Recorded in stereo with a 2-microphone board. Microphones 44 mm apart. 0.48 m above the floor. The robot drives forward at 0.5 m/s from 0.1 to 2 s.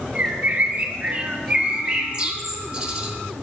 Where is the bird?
30° right (ahead or behind), 0.6 m; by 3.1 s 20° right (ahead or behind), 0.9 m.